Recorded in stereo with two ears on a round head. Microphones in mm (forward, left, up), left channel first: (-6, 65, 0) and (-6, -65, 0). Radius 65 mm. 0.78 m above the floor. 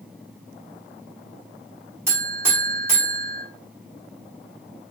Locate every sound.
2.1 s a buzzer: 15° right (ahead or behind), 1.1 m